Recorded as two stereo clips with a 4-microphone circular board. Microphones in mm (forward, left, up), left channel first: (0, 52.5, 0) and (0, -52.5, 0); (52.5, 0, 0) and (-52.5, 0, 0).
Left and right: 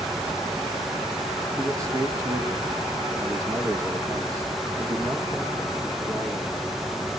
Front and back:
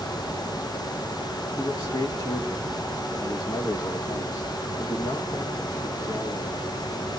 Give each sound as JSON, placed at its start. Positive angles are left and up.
{"t": 1.6, "sound": "a man speaking", "azimuth_deg": -35, "distance_m": 1.8}